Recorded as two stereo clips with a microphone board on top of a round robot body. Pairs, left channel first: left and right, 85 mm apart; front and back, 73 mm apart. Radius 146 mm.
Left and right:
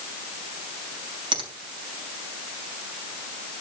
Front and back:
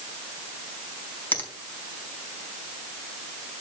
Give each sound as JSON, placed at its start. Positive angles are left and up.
{"t": 1.3, "sound": "a finger snap", "azimuth_deg": -70, "distance_m": 4.5}